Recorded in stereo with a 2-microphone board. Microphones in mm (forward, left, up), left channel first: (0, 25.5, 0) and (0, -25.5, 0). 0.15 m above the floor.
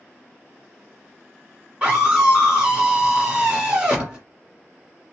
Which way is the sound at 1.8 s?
20° right (ahead or behind).